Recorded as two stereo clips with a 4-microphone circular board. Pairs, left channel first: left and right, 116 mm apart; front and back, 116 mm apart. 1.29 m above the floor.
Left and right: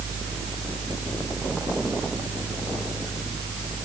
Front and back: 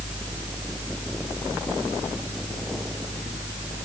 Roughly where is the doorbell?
No doorbell in this recording.